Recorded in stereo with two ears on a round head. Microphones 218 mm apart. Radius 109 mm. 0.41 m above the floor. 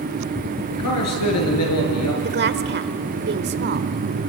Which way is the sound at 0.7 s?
75° left (ahead or behind).